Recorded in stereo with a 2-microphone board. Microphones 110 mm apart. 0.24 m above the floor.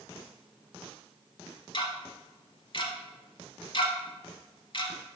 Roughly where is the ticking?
Left.